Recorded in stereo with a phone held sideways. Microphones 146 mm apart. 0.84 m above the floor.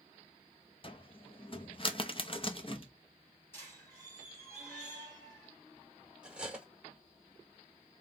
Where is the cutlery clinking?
5° right (ahead or behind), 1.4 m.